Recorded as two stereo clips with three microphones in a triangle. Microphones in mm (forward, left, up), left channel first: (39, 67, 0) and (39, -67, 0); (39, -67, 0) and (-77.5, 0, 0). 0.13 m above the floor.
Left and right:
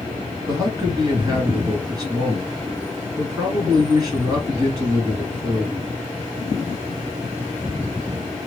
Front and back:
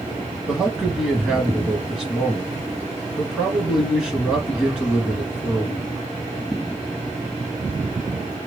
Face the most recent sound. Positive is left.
turn(degrees=-130)